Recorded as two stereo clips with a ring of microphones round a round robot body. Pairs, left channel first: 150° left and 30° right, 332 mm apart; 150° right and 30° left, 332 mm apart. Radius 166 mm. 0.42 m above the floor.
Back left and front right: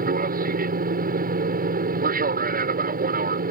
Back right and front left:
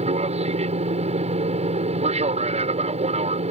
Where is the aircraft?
15° right.